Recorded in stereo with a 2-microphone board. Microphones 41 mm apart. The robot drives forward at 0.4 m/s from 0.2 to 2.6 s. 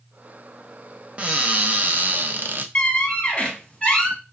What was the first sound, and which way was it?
A cupboard door, 30° right (ahead or behind).